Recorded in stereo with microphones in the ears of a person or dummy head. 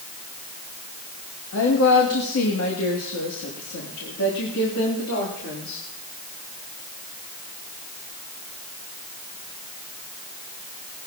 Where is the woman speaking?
70° left (ahead or behind), 2 m.